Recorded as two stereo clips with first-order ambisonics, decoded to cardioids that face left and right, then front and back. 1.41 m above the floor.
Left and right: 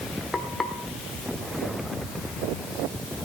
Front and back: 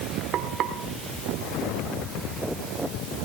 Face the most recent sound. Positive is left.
turn(degrees=160)